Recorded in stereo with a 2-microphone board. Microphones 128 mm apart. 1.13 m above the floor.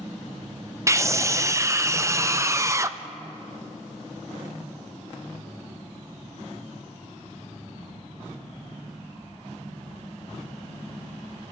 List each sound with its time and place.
0.9 s a scream: 25° right (ahead or behind), 0.5 m